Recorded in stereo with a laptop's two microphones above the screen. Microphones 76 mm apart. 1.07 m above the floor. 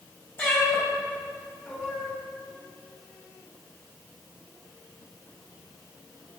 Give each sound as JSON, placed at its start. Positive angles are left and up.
{"t": 0.4, "sound": "a cat meowing", "side_deg": 25, "distance_m": 2.5}